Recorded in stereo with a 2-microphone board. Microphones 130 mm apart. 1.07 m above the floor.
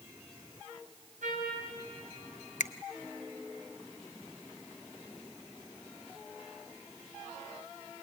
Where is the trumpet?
75° right (ahead or behind), 4.5 m.